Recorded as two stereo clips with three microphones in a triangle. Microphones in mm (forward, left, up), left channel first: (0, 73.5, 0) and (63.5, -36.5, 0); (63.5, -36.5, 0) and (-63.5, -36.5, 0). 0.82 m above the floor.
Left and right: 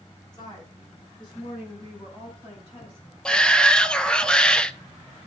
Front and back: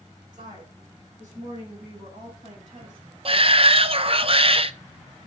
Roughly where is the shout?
Behind.